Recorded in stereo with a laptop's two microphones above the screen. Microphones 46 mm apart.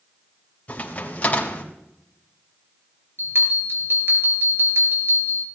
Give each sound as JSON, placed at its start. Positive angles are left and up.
{"t": 0.7, "sound": "a crack", "side_deg": 30, "distance_m": 3.5}
{"t": 3.2, "sound": "a bell", "side_deg": -60, "distance_m": 4.5}